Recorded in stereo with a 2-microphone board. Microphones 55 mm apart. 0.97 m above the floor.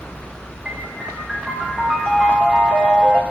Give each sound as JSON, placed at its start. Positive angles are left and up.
{"t": 0.7, "sound": "a piano", "side_deg": -10, "distance_m": 2.5}